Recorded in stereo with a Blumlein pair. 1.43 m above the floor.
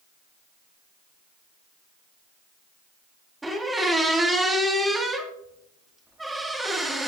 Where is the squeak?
10° right, 1.8 m.